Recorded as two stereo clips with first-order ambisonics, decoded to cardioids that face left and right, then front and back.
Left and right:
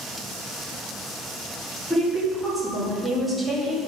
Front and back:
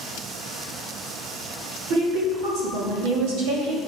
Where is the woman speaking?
175° right, 2 m.